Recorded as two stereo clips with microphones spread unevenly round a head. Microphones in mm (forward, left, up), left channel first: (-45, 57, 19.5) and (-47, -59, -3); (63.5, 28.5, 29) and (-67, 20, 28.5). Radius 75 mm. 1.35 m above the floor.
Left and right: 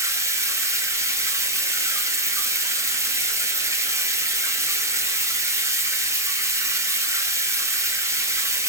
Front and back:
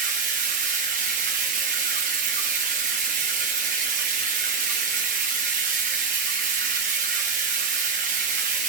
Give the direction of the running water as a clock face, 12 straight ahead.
5 o'clock.